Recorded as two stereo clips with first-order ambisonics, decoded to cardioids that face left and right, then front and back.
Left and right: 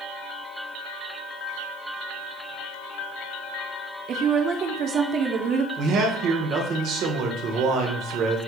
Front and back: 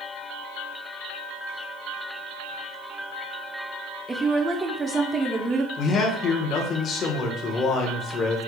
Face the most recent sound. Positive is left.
turn(degrees=-55)